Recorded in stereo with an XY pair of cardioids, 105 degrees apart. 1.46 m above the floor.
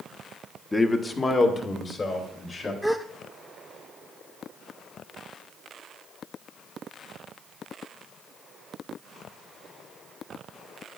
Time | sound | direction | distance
0.7 | a man speaking | 20° left | 0.8 m
2.8 | a gasp | straight ahead | 0.9 m